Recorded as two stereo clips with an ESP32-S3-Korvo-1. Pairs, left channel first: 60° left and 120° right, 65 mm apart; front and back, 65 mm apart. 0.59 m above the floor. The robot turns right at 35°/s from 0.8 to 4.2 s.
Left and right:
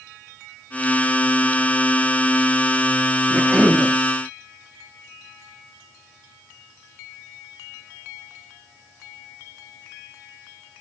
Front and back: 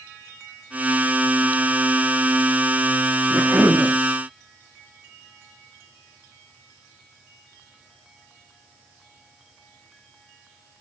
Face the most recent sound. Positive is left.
turn(degrees=-165)